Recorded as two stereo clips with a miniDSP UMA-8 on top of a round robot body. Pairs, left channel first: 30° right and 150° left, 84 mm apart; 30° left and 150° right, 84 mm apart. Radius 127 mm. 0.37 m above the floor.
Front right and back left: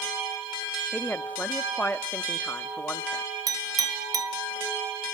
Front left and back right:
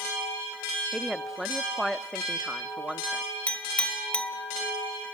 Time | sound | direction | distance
0.9 | a woman speaking | 65° right | 1.0 m
3.5 | a clink | 105° left | 2 m